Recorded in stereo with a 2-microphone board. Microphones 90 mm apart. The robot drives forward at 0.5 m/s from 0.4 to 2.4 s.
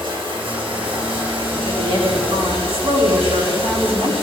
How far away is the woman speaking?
About 3.5 m.